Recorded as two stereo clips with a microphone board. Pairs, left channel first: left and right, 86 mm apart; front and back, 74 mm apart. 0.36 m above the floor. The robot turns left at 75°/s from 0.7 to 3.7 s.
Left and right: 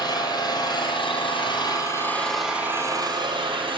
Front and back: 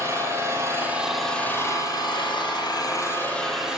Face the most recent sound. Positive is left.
turn(degrees=-100)